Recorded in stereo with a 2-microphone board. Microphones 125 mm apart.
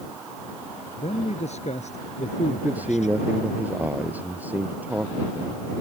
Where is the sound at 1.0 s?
60° left (ahead or behind); by 3.2 s 70° left (ahead or behind).